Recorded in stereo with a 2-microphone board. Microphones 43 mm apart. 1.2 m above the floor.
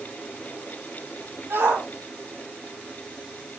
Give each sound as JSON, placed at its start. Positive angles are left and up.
{"t": 1.5, "sound": "a shout", "side_deg": -65, "distance_m": 7.5}